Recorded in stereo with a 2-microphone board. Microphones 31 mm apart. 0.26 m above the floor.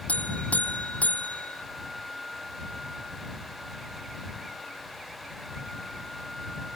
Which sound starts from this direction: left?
A buzzer, at 0.1 s.